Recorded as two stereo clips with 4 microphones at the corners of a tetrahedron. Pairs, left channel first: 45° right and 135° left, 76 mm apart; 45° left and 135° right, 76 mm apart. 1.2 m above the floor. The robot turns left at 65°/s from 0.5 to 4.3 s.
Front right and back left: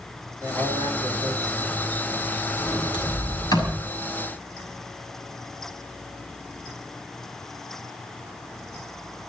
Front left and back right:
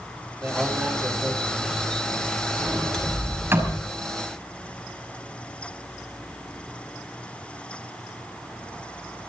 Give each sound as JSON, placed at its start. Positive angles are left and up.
{"t": 0.4, "sound": "a man speaking", "azimuth_deg": 170, "distance_m": 6.5}
{"t": 2.6, "sound": "a sliding door", "azimuth_deg": -15, "distance_m": 6.0}